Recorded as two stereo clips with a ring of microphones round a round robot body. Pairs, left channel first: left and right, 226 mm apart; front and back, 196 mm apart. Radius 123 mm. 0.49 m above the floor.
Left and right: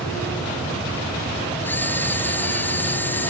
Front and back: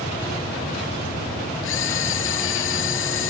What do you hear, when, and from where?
1.6 s a camera shutter: 10° left